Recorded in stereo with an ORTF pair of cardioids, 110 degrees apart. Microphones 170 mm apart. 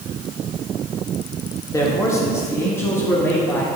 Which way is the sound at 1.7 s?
20° left.